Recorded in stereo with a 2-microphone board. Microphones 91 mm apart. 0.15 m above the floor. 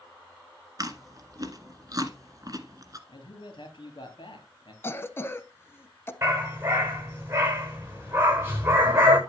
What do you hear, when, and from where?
0.8 s chewing: 40° right (ahead or behind), 1.5 m
3.1 s a man speaking: 65° left (ahead or behind), 4 m
4.8 s a cough: 25° left (ahead or behind), 1.1 m
6.2 s a dog barking: 30° right (ahead or behind), 8.5 m